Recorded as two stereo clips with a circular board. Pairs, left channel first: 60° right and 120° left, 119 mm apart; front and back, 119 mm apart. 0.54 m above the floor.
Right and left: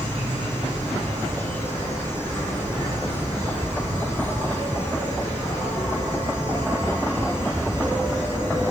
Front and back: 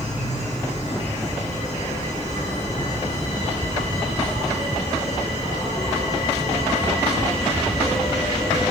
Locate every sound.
0.0 s an insect: 15° left, 8.5 m